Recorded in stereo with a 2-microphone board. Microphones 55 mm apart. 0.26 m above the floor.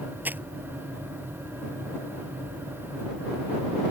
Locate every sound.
0.2 s crumpling: 35° right (ahead or behind)